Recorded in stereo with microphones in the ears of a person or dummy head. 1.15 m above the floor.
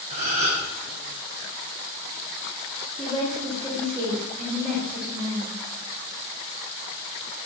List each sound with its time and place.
0.1 s a gasp: 50° right (ahead or behind), 1.5 m
3.0 s a woman speaking: centre (ahead or behind), 2 m